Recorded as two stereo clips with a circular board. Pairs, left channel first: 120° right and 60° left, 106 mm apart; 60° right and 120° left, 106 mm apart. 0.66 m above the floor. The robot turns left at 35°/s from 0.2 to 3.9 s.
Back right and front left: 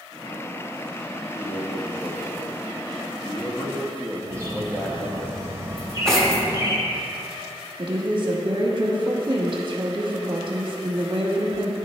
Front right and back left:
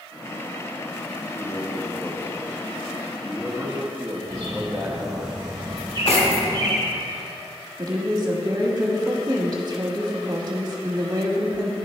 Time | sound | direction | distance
1.3 | a man speaking | 85° right | 0.7 m
4.3 | a bird | 115° left | 1.4 m
5.8 | cutlery clinking | 35° right | 1.1 m
7.8 | a woman speaking | 85° left | 1.0 m